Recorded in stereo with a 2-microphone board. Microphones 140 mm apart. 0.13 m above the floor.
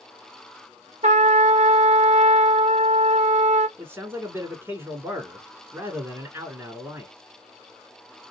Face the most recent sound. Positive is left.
turn(degrees=-20)  # may be behind; listen again after turning